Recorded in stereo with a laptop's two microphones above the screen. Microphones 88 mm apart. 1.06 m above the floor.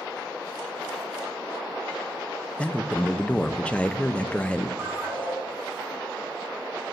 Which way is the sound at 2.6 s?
15° left (ahead or behind).